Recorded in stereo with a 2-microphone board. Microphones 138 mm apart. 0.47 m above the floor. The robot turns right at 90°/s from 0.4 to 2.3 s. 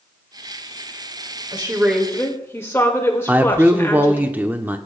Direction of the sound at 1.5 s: 50° right.